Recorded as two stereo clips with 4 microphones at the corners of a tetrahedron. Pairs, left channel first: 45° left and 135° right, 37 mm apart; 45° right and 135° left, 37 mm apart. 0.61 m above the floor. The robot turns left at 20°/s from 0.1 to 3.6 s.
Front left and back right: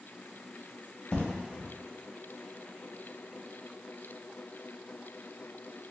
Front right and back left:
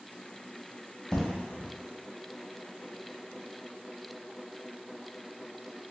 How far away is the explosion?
About 0.9 m.